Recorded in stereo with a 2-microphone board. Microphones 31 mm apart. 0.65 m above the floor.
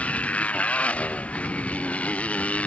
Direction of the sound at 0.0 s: 40° left (ahead or behind).